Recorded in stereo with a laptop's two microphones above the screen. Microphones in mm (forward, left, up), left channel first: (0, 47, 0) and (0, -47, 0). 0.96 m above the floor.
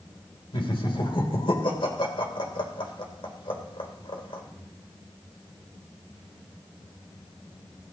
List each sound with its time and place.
0.5 s laughter: 60° left (ahead or behind), 3 m